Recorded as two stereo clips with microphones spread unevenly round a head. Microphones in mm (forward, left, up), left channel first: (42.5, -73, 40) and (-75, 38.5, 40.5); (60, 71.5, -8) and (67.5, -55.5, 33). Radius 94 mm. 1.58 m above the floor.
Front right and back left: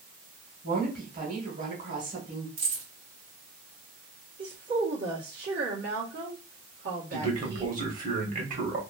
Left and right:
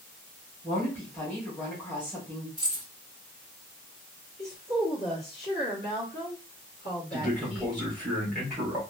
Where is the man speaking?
175° left, 1.2 m.